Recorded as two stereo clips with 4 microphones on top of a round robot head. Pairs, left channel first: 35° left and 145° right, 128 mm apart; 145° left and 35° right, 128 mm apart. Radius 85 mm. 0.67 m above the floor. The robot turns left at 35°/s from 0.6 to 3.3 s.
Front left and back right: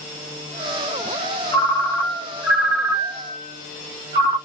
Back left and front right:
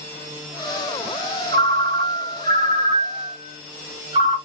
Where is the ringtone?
25° right, 1.6 m; by 4.4 s 90° right, 1.6 m.